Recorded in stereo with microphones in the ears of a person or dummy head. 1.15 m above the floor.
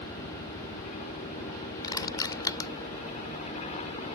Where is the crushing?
20° left (ahead or behind).